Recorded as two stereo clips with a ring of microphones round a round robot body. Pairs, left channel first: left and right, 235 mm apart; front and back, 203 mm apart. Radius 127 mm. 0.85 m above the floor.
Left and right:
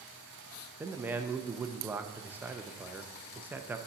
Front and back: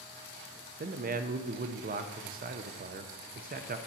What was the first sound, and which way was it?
A man speaking, 170° right.